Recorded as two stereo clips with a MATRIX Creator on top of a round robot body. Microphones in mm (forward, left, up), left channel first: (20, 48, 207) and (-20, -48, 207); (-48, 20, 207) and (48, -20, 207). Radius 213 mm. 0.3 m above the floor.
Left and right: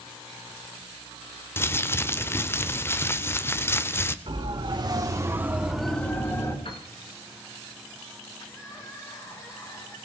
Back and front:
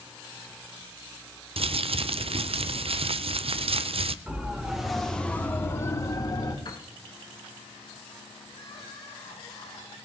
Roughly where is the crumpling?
Ahead.